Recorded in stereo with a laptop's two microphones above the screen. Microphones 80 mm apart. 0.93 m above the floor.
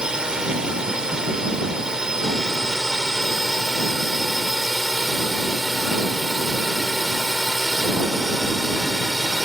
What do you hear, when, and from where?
0.0 s a drone: 10° right (ahead or behind); by 9.4 s centre (ahead or behind)